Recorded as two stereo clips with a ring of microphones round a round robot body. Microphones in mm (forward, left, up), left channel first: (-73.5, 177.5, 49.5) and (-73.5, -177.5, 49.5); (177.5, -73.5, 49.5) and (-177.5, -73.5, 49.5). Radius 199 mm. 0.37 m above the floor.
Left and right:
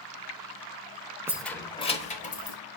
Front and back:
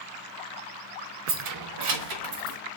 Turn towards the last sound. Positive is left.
turn(degrees=155)